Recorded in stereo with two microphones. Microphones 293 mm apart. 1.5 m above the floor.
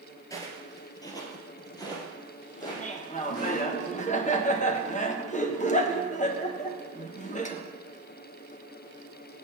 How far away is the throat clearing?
No throat clearing in this recording.